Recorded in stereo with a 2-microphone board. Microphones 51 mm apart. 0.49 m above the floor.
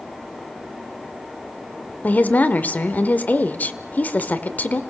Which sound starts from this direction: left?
A woman speaking, at 2.0 s.